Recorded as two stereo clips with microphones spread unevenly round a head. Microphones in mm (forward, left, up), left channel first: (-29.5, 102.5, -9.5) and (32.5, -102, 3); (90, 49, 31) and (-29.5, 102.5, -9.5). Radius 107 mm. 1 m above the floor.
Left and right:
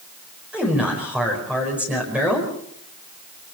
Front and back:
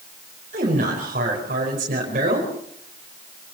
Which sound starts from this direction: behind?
A man speaking, at 0.5 s.